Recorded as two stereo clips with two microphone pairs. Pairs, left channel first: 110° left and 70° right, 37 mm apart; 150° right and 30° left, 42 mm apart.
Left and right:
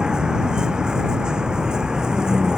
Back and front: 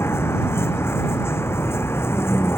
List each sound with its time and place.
0.0 s a vehicle: 140° right